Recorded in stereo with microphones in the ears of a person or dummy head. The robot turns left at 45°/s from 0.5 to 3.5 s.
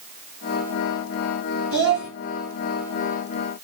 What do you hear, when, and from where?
1.7 s a child speaking: 70° right (ahead or behind), 3 m; by 2.1 s 50° right (ahead or behind), 3 m